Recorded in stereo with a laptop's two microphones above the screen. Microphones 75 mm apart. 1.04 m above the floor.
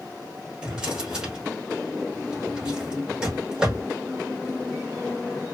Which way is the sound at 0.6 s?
10° right (ahead or behind).